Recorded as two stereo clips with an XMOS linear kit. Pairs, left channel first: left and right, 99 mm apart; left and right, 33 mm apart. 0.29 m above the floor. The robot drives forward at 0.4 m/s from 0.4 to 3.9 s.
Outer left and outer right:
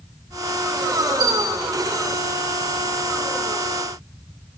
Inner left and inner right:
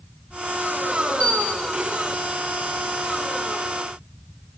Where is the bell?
50° left (ahead or behind), 1.6 m; by 1.7 s 45° left (ahead or behind), 1.7 m.